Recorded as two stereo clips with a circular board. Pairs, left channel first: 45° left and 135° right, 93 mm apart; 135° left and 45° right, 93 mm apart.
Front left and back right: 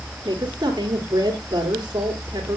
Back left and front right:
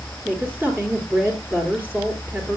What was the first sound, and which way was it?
A woman speaking, 110° right.